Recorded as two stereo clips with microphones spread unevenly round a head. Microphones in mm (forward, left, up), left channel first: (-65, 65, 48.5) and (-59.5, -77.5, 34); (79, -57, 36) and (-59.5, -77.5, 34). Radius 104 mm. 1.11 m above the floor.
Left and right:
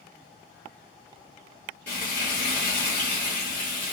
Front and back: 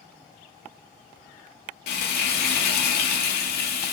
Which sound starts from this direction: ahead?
Frying, at 1.9 s.